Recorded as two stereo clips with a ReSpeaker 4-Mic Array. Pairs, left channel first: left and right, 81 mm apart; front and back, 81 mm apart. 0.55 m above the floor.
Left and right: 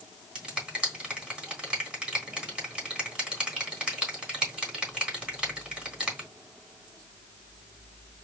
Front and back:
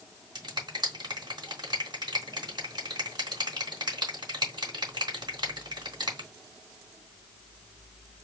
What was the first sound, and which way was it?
A finger snap, 165° right.